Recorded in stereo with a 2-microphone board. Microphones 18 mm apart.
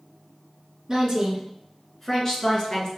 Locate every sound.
0.9 s a woman speaking: 20° right (ahead or behind), 1.1 m; by 2.9 s 40° left (ahead or behind), 1.5 m